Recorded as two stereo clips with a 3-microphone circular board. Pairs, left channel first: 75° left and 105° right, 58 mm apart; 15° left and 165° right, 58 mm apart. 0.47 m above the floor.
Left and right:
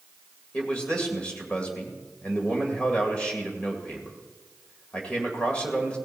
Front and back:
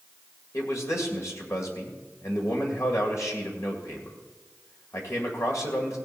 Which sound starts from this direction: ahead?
A man speaking, at 0.5 s.